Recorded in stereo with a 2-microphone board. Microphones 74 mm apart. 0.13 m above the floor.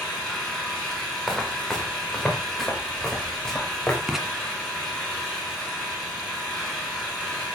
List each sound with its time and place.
0.0 s an engine running: 10° left (ahead or behind), 8 m
1.3 s footsteps: 5° left (ahead or behind), 5.5 m; by 4.0 s 10° left (ahead or behind), 7.5 m
4.1 s writing: 5° right (ahead or behind), 1.7 m